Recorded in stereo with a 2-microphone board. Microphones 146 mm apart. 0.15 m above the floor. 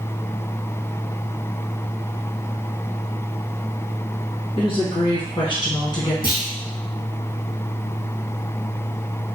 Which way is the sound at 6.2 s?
80° left.